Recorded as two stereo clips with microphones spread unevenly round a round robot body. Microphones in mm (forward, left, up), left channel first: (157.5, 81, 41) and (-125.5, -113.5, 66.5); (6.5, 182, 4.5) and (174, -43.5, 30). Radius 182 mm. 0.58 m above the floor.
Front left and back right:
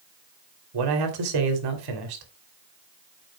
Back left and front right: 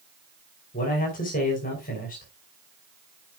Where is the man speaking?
170° right, 2.5 m.